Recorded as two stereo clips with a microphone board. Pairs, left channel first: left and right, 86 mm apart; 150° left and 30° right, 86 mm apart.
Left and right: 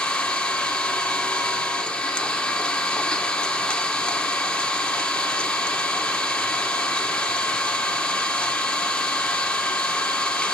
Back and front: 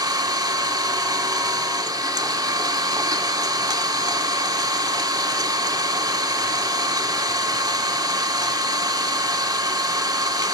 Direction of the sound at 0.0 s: 10° left.